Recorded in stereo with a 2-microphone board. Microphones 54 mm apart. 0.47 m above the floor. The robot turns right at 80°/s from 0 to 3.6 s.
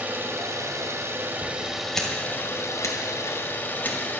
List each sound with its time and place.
0.0 s an engine running: 145° right, 1.2 m; by 4.2 s 140° left, 1.2 m
1.9 s scissors: 10° left (ahead or behind), 1.9 m; by 4.0 s 35° left (ahead or behind), 1.9 m